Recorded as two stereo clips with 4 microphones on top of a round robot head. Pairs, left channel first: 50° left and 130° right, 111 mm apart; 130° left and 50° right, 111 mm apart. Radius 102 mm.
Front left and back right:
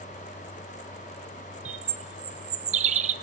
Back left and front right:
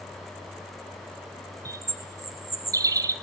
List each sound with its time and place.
1.6 s a bird: 110° right, 1.2 m